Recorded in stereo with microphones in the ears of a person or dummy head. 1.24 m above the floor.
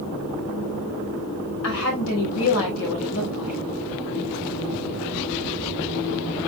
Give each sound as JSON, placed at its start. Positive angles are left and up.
{"t": 1.6, "sound": "a woman speaking", "side_deg": 75, "distance_m": 5.5}